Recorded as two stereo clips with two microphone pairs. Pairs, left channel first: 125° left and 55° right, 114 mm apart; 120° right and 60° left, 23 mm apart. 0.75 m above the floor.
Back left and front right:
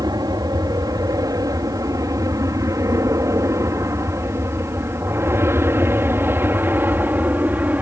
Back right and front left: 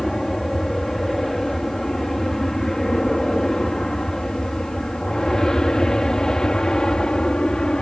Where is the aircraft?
55° right; by 7.8 s 120° right.